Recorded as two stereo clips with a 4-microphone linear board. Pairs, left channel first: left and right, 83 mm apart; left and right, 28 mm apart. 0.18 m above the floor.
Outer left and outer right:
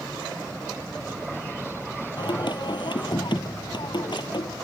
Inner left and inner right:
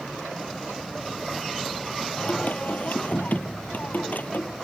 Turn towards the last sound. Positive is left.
turn(degrees=70)  # may be behind; listen again after turning